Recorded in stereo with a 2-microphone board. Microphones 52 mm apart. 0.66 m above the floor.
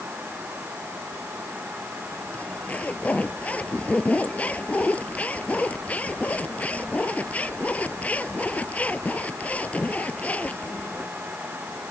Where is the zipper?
30° left (ahead or behind).